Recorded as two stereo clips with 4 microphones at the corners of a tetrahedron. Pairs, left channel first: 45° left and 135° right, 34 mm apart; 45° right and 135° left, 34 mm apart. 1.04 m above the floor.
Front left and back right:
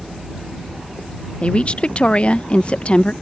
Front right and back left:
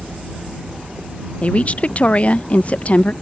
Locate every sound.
1.4 s a woman speaking: 5° right